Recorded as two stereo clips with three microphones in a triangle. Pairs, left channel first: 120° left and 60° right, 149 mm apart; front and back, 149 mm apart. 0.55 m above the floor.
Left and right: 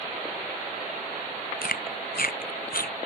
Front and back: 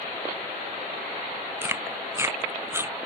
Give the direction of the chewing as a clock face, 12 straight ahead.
8 o'clock.